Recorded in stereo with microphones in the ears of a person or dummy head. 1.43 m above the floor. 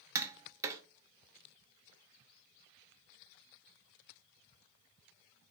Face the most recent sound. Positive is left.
turn(degrees=-15)  # may be behind; listen again after turning